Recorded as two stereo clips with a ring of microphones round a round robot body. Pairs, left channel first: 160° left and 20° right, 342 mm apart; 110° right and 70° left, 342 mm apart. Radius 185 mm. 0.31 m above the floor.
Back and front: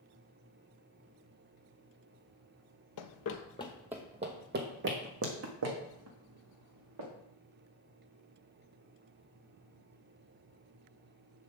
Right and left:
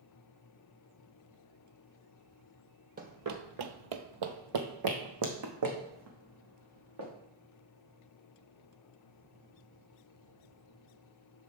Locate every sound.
3.0 s running footsteps: 130° left, 0.6 m; by 7.1 s 20° left, 2.5 m